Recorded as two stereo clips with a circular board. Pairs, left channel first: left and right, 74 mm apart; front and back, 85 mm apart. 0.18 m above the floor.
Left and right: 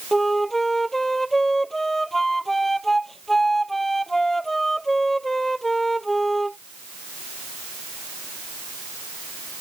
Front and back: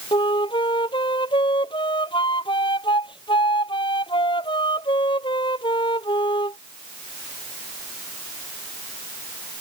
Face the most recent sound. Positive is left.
turn(degrees=5)